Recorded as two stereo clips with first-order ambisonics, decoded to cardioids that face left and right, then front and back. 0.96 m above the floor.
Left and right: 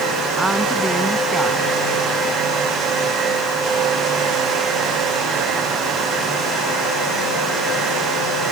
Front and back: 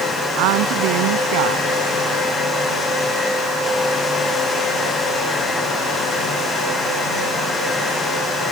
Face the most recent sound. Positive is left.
turn(degrees=-170)